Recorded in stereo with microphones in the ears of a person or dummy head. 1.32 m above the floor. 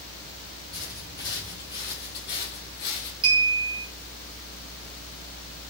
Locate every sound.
0.7 s footsteps: centre (ahead or behind), 1.3 m; by 3.1 s 35° left (ahead or behind), 1.6 m
3.2 s a clink: 25° right (ahead or behind), 1.4 m